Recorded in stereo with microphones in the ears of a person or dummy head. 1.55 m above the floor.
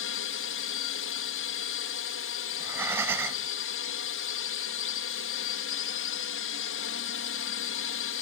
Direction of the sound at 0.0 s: 65° left (ahead or behind).